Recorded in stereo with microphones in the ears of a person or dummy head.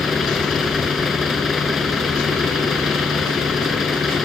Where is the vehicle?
Centre (ahead or behind).